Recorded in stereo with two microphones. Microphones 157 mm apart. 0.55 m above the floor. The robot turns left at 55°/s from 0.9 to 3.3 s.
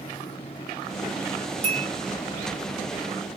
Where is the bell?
40° right (ahead or behind), 1.3 m; by 1.9 s 30° right (ahead or behind), 1.3 m.